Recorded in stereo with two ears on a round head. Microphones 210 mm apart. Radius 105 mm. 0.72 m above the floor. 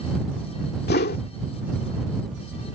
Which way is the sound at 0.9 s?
45° left (ahead or behind).